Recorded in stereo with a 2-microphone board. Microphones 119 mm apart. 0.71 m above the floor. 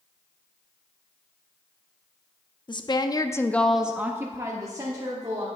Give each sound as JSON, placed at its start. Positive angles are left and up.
{"t": 2.7, "sound": "a woman speaking", "side_deg": 40, "distance_m": 0.7}